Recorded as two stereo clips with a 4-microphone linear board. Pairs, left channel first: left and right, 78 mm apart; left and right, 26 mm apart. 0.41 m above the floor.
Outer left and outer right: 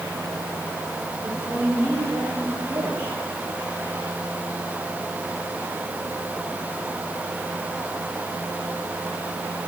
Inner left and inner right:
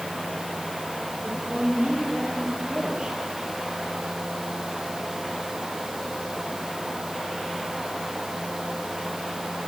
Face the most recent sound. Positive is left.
turn(degrees=-25)  # may be behind; listen again after turning